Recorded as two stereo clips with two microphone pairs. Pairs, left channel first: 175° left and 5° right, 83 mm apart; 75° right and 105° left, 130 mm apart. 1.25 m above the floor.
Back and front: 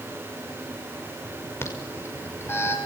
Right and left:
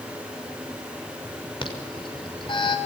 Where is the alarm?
125° right, 6 m.